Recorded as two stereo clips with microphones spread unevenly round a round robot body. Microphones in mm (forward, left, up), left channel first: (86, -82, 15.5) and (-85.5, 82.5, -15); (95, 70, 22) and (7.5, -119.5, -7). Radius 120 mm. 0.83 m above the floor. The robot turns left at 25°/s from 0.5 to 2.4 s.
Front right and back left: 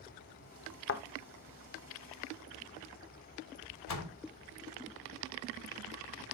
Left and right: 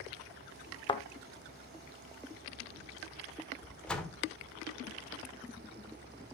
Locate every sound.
0.9 s a thud: straight ahead, 1.0 m; by 1.0 s 5° right, 1.0 m
3.9 s a door slam: 20° right, 1.8 m